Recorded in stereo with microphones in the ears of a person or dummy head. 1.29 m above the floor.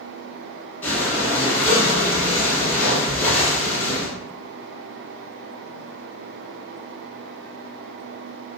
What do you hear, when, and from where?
0.8 s breathing: 10° left (ahead or behind), 0.8 m